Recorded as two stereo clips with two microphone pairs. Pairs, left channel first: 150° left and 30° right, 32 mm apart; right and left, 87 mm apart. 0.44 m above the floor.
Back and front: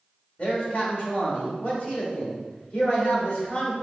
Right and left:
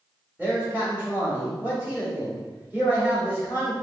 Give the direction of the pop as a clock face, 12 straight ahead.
No pop in this recording.